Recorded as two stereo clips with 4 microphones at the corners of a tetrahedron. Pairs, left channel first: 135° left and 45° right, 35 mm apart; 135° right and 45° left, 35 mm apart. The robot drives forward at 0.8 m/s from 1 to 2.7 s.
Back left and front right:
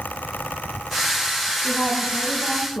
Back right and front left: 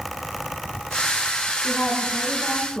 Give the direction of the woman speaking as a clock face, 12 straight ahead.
6 o'clock.